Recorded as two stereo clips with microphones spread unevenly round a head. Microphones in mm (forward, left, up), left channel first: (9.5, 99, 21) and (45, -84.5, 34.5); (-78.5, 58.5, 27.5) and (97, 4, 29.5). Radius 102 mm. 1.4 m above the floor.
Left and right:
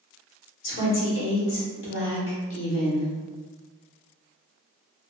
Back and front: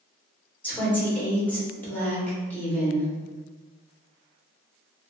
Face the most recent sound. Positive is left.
turn(degrees=80)